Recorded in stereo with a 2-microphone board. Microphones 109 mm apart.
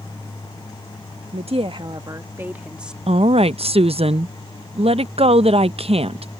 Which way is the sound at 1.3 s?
75° right (ahead or behind).